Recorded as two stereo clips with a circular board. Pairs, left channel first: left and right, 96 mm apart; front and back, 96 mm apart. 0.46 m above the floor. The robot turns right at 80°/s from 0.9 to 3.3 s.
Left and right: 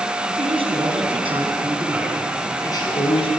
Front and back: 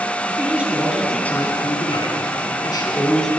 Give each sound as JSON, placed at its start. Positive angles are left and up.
{"t": 0.3, "sound": "a man speaking", "azimuth_deg": -105, "distance_m": 4.5}